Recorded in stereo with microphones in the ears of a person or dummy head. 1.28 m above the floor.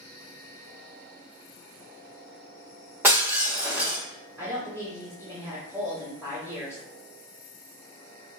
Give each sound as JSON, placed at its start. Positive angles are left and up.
{"t": 3.0, "sound": "breaking glass", "side_deg": -10, "distance_m": 1.3}
{"t": 4.4, "sound": "a woman speaking", "side_deg": -10, "distance_m": 1.4}